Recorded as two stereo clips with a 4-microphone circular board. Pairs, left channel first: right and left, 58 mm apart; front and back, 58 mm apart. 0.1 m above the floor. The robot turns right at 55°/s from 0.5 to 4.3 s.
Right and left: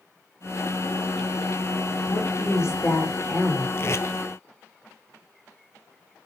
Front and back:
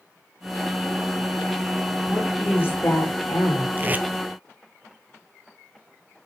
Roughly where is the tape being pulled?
Behind right.